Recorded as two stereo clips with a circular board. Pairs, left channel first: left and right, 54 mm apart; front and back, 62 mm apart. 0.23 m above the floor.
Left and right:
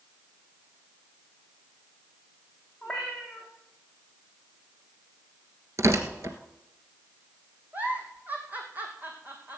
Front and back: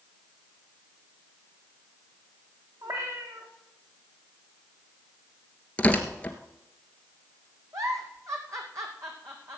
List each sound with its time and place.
2.8 s a cat meowing: straight behind, 3.5 m
5.8 s tearing paper: 70° right, 1.5 m
7.7 s a giggle: 150° right, 2 m